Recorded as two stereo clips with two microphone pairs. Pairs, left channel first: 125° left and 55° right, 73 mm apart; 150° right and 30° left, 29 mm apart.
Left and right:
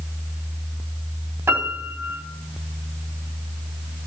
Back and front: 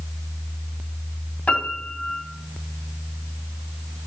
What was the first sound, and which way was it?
A piano, 110° right.